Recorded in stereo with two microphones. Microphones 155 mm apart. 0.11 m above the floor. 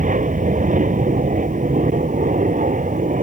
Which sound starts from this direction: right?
An aircraft, at 0.0 s.